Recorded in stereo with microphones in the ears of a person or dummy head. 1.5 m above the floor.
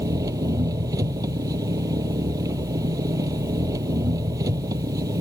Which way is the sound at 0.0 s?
20° right (ahead or behind).